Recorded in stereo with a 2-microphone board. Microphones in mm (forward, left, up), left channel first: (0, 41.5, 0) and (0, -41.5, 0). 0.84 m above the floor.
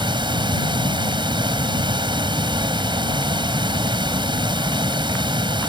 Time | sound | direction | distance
0.0 | running water | 80° right | ?